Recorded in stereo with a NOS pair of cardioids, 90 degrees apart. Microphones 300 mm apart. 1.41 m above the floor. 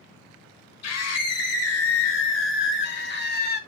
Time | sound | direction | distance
0.8 | a scream | 55° left | 2.5 m